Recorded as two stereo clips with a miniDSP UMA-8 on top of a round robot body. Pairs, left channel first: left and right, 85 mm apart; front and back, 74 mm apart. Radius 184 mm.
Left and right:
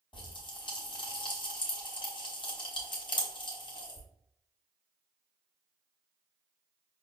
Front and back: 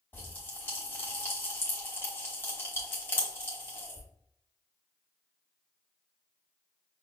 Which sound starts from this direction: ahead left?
A pop, at 0.1 s.